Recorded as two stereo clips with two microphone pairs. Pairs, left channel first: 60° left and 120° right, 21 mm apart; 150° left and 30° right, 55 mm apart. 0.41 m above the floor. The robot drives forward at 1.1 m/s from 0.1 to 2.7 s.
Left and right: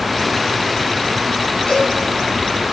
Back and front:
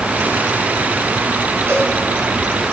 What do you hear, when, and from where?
1.7 s a cowbell: 15° left, 3.5 m